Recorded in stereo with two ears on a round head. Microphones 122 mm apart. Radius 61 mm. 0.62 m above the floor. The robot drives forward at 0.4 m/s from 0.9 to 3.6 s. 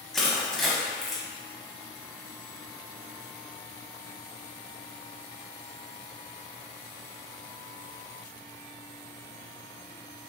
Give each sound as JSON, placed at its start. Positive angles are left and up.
{"t": 0.1, "sound": "crushing", "side_deg": 0, "distance_m": 0.8}